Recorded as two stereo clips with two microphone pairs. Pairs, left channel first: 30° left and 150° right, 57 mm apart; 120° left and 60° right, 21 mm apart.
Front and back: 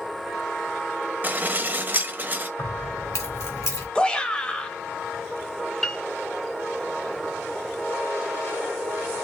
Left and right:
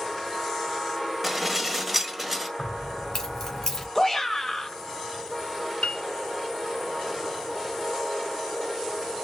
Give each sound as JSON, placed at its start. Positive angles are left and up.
{"t": 1.2, "sound": "dishes clattering", "azimuth_deg": -135, "distance_m": 1.0}
{"t": 2.6, "sound": "keys jangling", "azimuth_deg": 50, "distance_m": 2.5}
{"t": 4.0, "sound": "a shout", "azimuth_deg": 80, "distance_m": 1.0}
{"t": 5.8, "sound": "a piano", "azimuth_deg": 110, "distance_m": 0.8}